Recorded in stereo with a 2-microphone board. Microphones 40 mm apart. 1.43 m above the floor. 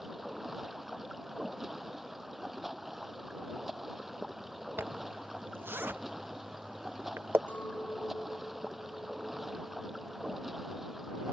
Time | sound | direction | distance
0.0 | running water | 5° right (ahead or behind) | ?
4.8 | a zipper | 65° right (ahead or behind) | ?
7.5 | a clink | 50° left (ahead or behind) | ?